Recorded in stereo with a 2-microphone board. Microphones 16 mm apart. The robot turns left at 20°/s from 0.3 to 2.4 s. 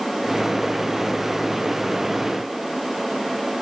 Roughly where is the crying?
No crying in this recording.